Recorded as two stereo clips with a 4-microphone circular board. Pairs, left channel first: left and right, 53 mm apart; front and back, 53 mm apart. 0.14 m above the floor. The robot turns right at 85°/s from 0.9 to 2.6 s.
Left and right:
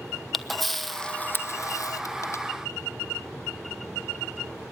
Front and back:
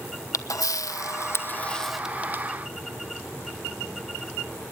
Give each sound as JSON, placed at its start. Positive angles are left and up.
{"t": 0.3, "sound": "a camera shutter", "azimuth_deg": 0, "distance_m": 1.0}